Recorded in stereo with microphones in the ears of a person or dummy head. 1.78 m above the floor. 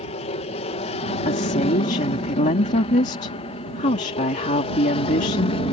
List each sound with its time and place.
0.0 s an aircraft: 30° left (ahead or behind); by 5.7 s 25° left (ahead or behind)
1.2 s a woman speaking: 35° left (ahead or behind)